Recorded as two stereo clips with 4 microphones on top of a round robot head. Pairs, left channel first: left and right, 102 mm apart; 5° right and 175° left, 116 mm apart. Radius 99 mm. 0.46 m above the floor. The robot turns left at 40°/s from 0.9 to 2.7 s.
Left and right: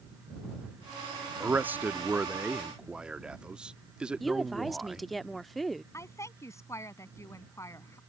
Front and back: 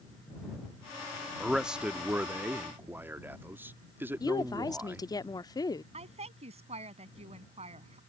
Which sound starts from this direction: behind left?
A woman speaking, at 5.9 s.